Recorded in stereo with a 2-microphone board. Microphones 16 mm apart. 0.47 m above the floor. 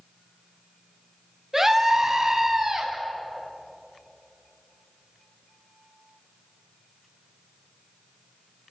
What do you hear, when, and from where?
1.5 s a scream: 25° right (ahead or behind), 3.5 m; by 2.9 s 30° right (ahead or behind), 4.5 m